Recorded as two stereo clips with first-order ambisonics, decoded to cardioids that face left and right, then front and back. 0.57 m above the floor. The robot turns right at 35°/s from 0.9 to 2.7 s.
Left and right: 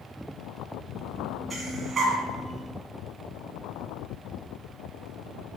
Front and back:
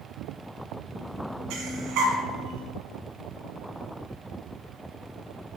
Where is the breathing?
175° right, 1.5 m; by 2.2 s 150° right, 1.5 m.